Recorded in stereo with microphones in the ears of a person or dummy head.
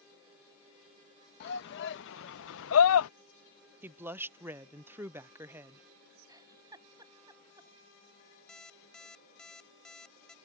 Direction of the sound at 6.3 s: 15° right (ahead or behind).